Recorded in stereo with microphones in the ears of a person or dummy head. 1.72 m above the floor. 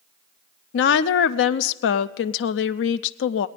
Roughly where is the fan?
No fan in this recording.